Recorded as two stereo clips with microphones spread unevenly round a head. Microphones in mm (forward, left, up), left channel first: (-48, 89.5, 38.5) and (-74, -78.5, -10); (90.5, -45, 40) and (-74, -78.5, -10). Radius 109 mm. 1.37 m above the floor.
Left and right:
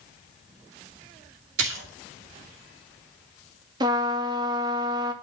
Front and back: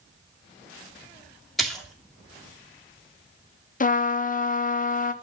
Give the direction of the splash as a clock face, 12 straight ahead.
3 o'clock.